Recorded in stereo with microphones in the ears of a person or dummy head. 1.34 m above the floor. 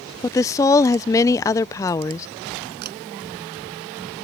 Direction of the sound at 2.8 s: 50° right (ahead or behind).